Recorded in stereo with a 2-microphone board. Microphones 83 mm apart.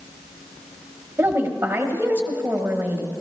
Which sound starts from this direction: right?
A woman speaking, at 1.2 s.